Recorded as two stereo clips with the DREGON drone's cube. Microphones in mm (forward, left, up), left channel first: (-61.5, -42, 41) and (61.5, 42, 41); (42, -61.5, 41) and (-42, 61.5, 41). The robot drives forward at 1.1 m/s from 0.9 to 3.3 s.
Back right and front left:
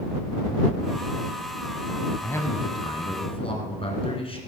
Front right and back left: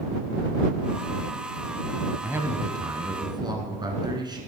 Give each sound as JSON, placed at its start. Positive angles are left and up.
{"t": 2.2, "sound": "a man speaking", "azimuth_deg": 165, "distance_m": 1.1}